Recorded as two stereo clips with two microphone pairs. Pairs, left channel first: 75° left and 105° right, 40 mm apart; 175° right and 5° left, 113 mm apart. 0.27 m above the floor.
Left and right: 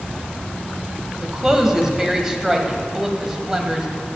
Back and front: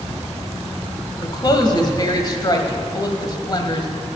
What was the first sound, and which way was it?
A woman speaking, straight behind.